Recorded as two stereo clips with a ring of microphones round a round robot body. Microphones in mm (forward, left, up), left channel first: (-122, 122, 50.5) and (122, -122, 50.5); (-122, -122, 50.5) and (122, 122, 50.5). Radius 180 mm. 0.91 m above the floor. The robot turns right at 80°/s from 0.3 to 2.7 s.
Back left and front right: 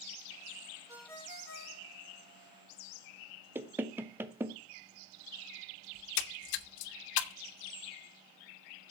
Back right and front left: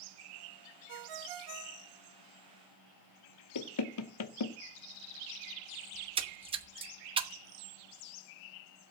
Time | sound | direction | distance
0.9 | a ringtone | 35° left | 1.0 m
3.5 | knocking | 125° right | 0.9 m
6.0 | a splash | 120° left | 0.9 m